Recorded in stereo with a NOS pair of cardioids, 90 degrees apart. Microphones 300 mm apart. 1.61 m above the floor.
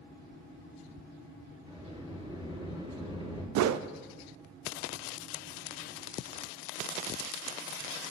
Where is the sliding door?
20° right, 4 m.